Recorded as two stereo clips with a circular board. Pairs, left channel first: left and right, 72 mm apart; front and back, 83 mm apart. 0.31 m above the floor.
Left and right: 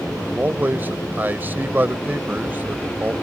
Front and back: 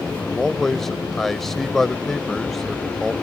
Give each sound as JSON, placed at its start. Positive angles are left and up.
{"t": 0.2, "sound": "a man speaking", "azimuth_deg": -85}